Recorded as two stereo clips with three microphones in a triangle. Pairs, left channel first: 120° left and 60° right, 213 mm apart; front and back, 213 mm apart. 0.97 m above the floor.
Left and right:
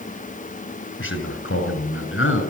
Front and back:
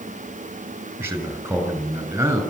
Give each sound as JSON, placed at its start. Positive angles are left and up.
{"t": 1.0, "sound": "a man speaking", "azimuth_deg": 100, "distance_m": 6.5}